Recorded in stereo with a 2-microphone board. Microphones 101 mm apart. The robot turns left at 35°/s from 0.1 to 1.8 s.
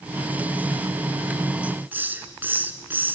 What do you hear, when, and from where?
1.6 s a hiss: 15° right (ahead or behind), 1.1 m; by 3.1 s 20° right (ahead or behind), 1.1 m